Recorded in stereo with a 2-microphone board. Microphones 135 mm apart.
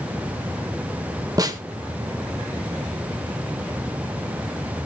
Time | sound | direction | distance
1.4 | a snare drum | 30° right (ahead or behind) | 1.8 m